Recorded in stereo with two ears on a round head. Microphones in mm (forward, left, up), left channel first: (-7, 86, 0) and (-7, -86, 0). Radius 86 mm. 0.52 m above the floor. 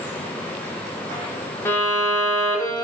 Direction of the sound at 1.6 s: 15° left (ahead or behind).